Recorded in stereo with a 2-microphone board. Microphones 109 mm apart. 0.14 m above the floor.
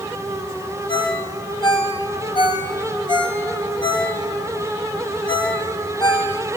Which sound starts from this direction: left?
A ringtone, at 0.9 s.